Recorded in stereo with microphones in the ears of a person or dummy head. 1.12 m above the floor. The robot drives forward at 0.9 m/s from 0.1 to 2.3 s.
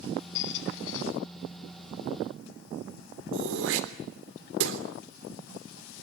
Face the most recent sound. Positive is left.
turn(degrees=-75)  # may be behind; listen again after turning